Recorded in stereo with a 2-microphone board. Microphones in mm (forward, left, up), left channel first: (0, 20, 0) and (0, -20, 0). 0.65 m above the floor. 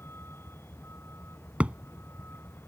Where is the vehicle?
70° left (ahead or behind); by 2.7 s 65° left (ahead or behind).